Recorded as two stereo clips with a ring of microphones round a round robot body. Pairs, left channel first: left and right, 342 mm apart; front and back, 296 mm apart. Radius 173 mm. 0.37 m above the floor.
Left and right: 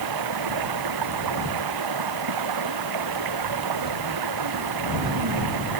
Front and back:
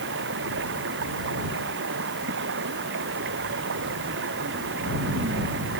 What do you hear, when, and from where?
0.0 s running water: 120° right